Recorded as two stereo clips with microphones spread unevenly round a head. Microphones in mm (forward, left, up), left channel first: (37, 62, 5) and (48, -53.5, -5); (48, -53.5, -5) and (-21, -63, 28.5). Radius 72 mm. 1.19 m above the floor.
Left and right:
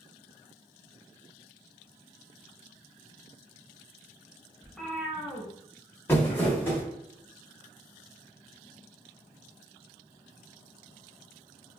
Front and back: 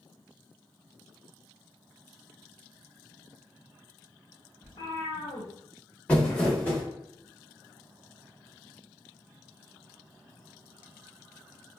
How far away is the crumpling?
About 0.9 m.